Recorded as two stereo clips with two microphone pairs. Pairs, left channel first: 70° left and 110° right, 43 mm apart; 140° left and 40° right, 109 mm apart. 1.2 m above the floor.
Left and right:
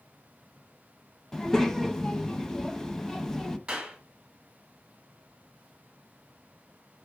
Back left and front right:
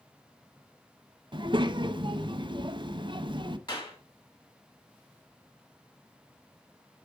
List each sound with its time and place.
1.3 s a child speaking: 5° right, 0.6 m
3.7 s a clap: 175° right, 2 m